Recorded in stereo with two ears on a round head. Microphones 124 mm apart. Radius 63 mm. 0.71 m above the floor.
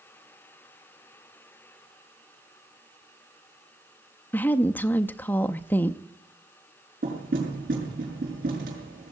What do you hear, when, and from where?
4.3 s a woman speaking: 15° left (ahead or behind), 0.5 m
7.0 s knocking: 75° right (ahead or behind), 6.5 m